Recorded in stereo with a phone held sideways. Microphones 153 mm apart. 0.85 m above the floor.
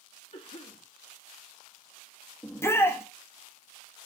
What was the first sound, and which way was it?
A cough, 55° left (ahead or behind).